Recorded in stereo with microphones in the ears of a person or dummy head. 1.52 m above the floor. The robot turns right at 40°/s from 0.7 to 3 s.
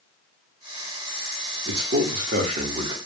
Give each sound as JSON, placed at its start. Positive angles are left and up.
{"t": 1.6, "sound": "a man speaking", "azimuth_deg": -75, "distance_m": 0.8}